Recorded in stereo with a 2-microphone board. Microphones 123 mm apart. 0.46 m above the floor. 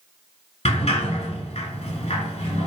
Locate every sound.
0.7 s a sliding door: 60° left (ahead or behind), 1.2 m